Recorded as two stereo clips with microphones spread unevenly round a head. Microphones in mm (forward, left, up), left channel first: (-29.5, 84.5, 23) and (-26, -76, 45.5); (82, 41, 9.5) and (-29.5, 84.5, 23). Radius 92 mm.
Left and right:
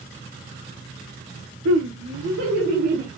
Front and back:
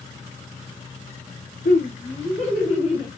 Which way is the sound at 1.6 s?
70° right.